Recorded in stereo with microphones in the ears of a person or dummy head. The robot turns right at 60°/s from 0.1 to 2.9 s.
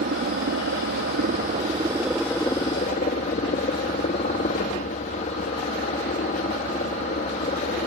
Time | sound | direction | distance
0.0 | a helicopter | 130° right | ?